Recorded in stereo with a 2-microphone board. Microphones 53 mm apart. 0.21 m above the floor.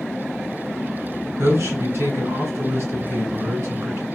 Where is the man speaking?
55° right (ahead or behind), 1.9 m.